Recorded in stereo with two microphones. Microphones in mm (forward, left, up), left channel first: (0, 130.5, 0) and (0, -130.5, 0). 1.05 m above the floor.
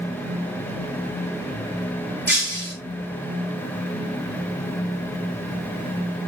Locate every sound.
2.3 s breaking glass: 45° right (ahead or behind), 6 m